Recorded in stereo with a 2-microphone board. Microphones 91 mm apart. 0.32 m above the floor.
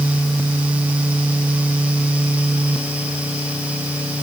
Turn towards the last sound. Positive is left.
No sound to turn to.